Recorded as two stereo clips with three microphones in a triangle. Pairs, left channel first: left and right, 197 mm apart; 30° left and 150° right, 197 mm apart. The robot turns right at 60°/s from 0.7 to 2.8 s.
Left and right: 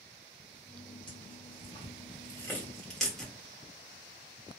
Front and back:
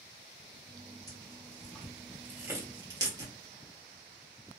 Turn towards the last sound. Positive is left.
turn(degrees=175)